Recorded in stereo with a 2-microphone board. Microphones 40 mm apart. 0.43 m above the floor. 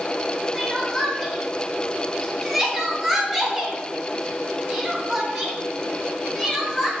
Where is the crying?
10° right (ahead or behind), 0.8 m.